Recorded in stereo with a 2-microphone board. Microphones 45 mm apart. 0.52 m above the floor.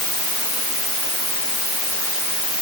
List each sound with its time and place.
Only background noise.